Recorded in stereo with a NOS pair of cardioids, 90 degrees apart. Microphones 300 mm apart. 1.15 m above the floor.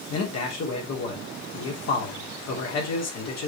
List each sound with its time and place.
0.1 s a man speaking: 65° left, 3 m